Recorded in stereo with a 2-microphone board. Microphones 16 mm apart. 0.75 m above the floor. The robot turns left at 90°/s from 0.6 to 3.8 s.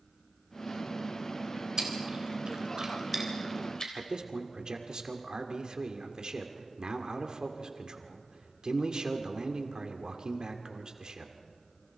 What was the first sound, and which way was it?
Chewing, 35° right (ahead or behind).